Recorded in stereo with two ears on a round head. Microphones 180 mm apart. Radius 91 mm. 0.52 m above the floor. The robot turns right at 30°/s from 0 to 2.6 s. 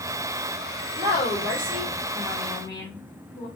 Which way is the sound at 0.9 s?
25° right.